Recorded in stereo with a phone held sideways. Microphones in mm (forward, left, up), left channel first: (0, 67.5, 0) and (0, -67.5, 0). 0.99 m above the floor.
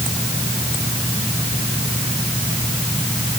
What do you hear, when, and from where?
Only background noise.